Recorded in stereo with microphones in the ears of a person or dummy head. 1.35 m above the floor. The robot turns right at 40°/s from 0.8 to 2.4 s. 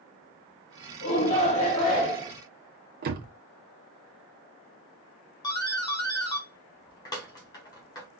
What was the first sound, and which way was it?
A shout, 125° left.